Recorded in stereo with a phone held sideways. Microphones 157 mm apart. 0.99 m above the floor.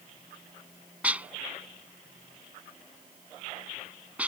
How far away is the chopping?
No chopping in this recording.